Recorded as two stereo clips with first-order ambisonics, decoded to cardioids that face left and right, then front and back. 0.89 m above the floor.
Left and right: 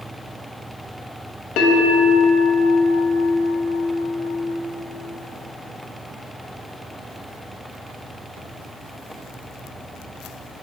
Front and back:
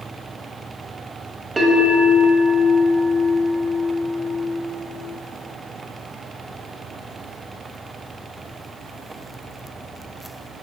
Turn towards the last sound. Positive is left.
turn(degrees=105)